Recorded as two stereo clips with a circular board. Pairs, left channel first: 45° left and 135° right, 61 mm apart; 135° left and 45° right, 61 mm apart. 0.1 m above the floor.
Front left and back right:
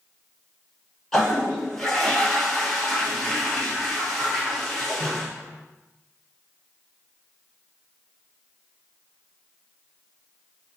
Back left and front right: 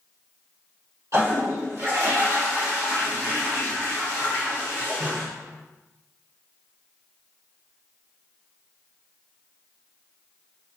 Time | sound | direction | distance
1.1 | a toilet flushing | 35° right | 1.5 m